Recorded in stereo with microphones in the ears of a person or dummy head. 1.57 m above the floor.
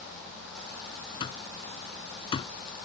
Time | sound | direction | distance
1.2 | an alarm clock | 35° left (ahead or behind) | ?